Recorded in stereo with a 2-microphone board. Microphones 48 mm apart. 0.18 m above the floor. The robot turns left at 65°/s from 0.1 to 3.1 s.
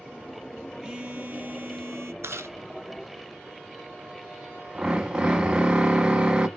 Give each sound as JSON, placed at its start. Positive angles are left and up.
{"t": 0.8, "sound": "a phone buzzing", "azimuth_deg": -25, "distance_m": 1.2}
{"t": 2.2, "sound": "chewing", "side_deg": -70, "distance_m": 0.6}
{"t": 4.8, "sound": "a drill", "side_deg": -20, "distance_m": 0.7}